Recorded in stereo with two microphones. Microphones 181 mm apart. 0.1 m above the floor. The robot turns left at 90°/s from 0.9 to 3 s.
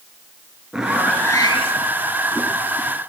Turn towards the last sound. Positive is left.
turn(degrees=-5)